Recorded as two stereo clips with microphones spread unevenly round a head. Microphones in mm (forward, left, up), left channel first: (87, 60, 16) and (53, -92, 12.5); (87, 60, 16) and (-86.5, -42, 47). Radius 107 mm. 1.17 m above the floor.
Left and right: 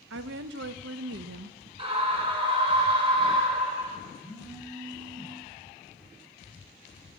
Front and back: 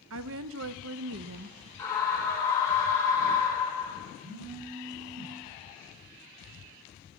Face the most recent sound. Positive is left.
turn(degrees=180)